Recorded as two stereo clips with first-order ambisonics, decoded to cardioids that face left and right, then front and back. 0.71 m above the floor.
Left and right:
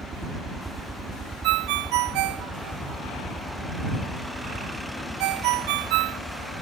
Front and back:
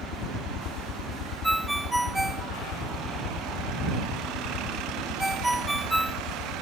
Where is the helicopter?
25° right; by 6.6 s 10° left.